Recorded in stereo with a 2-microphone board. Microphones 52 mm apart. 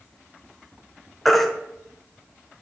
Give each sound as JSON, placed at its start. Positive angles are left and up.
{"t": 1.2, "sound": "a baby crying", "side_deg": 5, "distance_m": 1.1}